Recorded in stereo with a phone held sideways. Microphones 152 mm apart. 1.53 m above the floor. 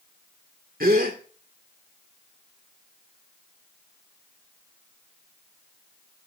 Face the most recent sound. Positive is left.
turn(degrees=-75)  # may be behind; listen again after turning